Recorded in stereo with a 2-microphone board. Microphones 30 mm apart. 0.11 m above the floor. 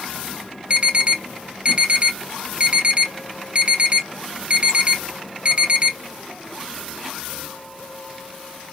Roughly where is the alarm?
Right.